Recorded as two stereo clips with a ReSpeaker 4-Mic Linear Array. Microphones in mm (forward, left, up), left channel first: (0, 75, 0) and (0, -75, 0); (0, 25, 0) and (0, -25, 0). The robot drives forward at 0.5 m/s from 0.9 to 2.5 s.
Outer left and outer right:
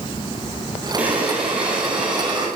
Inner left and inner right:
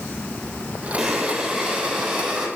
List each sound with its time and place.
1.0 s breathing: 10° right (ahead or behind), 1.1 m; by 2.5 s 5° right (ahead or behind), 1.8 m